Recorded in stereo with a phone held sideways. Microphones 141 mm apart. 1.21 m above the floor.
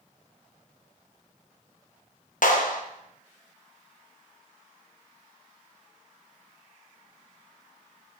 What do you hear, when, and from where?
2.4 s a clap: 65° left (ahead or behind), 1.0 m